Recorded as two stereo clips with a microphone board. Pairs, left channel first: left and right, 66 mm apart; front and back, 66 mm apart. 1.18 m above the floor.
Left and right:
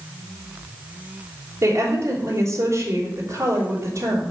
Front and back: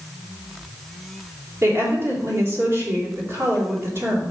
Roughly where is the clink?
No clink in this recording.